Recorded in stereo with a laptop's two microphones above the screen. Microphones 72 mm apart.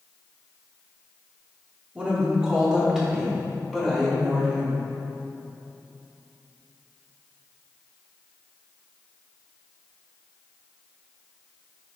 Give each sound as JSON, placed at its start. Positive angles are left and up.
{"t": 1.9, "sound": "a woman speaking", "side_deg": -15, "distance_m": 2.5}